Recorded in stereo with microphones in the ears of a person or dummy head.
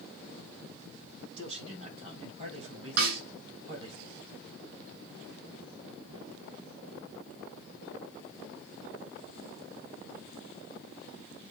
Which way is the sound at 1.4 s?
45° right (ahead or behind).